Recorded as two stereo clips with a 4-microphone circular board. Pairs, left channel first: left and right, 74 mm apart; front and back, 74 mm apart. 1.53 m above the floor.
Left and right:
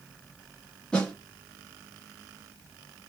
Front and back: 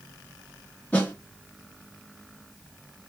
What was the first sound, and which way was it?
A snare drum, 30° left.